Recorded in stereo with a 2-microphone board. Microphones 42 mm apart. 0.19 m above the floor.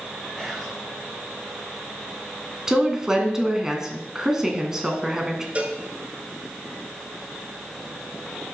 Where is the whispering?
5° right (ahead or behind), 2 m.